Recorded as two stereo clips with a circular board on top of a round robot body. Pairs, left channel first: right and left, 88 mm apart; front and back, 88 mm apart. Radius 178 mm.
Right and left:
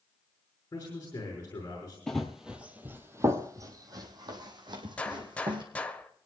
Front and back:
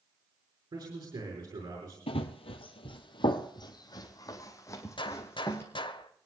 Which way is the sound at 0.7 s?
150° right.